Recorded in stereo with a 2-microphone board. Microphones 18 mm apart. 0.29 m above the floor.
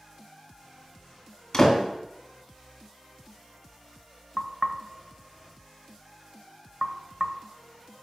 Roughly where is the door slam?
Left.